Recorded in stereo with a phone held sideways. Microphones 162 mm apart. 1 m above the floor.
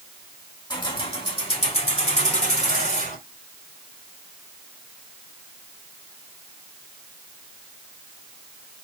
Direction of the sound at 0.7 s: 30° left (ahead or behind).